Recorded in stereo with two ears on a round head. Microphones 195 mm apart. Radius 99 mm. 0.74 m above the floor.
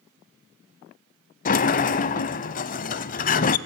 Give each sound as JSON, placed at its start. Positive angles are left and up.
{"t": 1.4, "sound": "a sliding door", "side_deg": 40, "distance_m": 0.8}